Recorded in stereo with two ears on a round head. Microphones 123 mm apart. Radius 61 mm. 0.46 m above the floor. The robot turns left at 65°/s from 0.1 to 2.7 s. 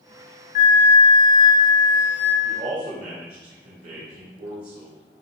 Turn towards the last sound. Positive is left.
turn(degrees=-50)  # may be behind; listen again after turning